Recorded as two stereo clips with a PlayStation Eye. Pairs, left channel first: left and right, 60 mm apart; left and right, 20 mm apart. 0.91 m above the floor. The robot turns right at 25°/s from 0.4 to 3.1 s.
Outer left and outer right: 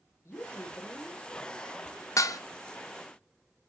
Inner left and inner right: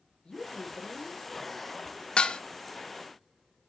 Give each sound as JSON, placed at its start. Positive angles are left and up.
{"t": 0.2, "sound": "a woman speaking", "side_deg": 50, "distance_m": 1.6}
{"t": 2.2, "sound": "dishes clattering", "side_deg": 65, "distance_m": 0.5}